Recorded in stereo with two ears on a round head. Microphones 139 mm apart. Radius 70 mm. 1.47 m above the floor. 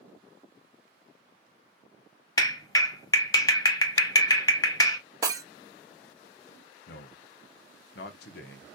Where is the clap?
20° left (ahead or behind), 0.9 m.